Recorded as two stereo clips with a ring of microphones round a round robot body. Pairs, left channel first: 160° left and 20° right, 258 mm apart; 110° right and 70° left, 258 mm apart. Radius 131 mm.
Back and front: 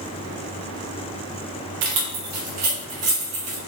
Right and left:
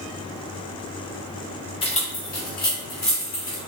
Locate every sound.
1.8 s keys jangling: 40° right, 0.8 m; by 3.6 s 60° right, 3 m